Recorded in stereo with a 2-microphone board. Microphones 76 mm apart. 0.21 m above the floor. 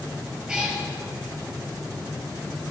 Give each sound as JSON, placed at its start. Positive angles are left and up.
{"t": 0.5, "sound": "a cat meowing", "side_deg": -10, "distance_m": 2.5}